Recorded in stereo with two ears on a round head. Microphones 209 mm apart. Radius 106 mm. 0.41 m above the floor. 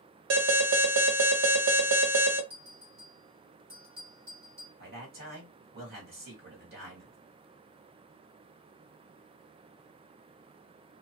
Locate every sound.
0.3 s an alarm: 55° right (ahead or behind), 1.4 m
2.5 s a bell: 45° right (ahead or behind), 1.6 m
4.8 s a man speaking: 40° right (ahead or behind), 1.7 m